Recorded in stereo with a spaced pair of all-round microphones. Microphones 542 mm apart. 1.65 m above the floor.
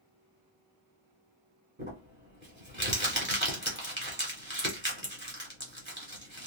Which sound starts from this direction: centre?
Crumpling, at 1.8 s.